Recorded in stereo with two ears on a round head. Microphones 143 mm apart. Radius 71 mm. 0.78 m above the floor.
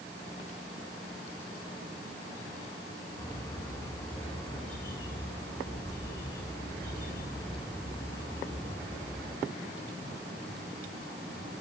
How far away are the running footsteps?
I don't hear running footsteps.